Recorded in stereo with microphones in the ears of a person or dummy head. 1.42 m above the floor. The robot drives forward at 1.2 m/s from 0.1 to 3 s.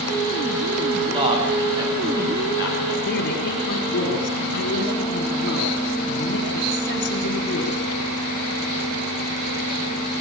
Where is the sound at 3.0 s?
60° left (ahead or behind), 5 m.